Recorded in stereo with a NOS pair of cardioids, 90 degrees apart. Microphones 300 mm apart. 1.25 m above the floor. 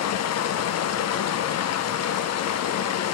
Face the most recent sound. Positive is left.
turn(degrees=60)